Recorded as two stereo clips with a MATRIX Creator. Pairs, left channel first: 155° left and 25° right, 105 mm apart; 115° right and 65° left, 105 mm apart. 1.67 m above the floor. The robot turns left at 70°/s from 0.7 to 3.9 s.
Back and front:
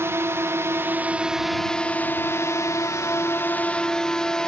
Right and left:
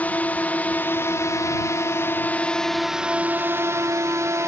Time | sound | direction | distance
0.0 | a drone | 55° right | ?